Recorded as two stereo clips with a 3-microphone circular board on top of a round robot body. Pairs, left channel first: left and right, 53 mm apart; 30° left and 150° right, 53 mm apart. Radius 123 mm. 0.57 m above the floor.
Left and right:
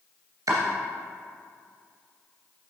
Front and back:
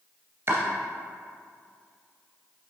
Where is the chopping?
110° right, 2.5 m.